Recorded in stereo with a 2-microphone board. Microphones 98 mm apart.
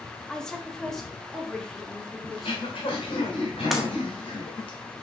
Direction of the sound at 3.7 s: Centre (ahead or behind).